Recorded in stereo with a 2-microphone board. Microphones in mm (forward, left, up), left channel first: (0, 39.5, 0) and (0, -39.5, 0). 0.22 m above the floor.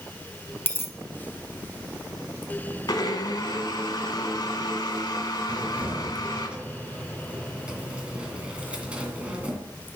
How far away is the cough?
No cough in this recording.